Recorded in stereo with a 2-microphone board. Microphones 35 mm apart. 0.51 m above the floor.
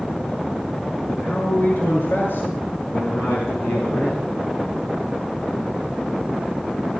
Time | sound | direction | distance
1.1 | a man speaking | 65° left (ahead or behind) | 7 m